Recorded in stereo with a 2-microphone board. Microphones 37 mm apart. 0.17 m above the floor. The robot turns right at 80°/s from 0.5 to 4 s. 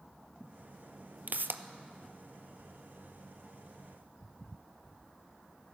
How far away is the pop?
About 0.5 m.